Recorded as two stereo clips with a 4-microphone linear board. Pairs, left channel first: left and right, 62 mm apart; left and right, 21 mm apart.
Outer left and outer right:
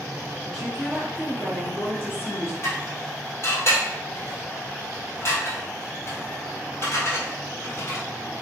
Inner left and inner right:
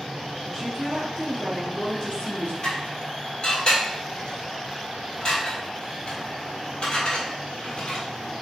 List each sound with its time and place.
0.5 s a woman speaking: 5° right (ahead or behind), 1.4 m; by 2.5 s 45° left (ahead or behind), 1.7 m
2.6 s dishes clattering: 45° left (ahead or behind), 1.7 m